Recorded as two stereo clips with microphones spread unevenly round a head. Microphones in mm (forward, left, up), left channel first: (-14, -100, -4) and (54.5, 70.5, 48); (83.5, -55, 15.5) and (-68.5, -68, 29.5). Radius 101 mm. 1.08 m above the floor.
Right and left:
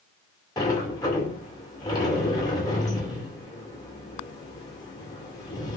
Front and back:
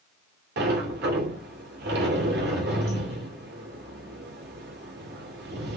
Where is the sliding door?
175° left, 2.5 m.